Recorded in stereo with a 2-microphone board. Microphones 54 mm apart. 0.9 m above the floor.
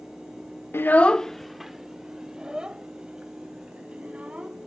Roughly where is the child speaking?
Left.